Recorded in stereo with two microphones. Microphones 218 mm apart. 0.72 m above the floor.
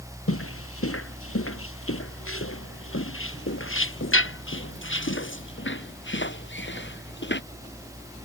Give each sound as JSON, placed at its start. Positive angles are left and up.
{"t": 0.3, "sound": "footsteps", "side_deg": 85}